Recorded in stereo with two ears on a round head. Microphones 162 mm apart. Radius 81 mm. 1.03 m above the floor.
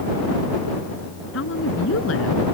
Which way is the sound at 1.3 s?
80° left.